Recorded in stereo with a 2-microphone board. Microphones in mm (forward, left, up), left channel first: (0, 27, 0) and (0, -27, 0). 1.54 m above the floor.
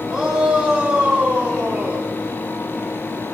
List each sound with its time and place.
0.1 s a shout: 15° right (ahead or behind), 8 m; by 2.1 s 30° right (ahead or behind), 9 m